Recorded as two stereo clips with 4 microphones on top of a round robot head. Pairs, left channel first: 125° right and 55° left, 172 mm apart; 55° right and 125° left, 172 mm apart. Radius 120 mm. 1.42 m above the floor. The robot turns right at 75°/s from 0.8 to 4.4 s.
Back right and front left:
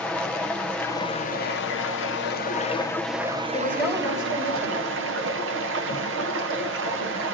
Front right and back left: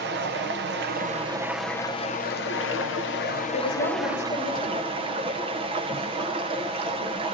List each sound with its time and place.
0.0 s running water: 155° left, 0.8 m; by 7.4 s 65° left, 0.8 m
3.5 s a woman speaking: 60° right, 5 m; by 4.9 s 5° left, 5 m